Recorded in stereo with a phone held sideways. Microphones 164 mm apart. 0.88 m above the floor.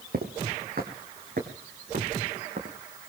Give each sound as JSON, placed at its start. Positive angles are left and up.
{"t": 0.1, "sound": "footsteps", "side_deg": -70, "distance_m": 2.5}